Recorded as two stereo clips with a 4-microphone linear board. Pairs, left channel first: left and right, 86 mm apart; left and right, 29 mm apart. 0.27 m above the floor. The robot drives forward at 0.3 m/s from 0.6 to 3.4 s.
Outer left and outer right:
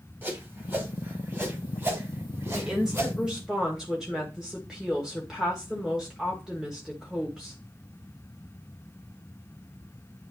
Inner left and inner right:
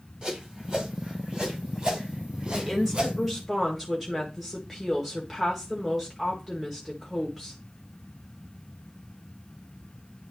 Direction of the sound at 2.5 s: 10° right (ahead or behind).